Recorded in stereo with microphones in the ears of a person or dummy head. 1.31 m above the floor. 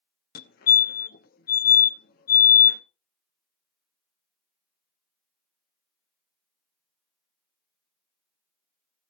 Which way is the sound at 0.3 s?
50° left (ahead or behind).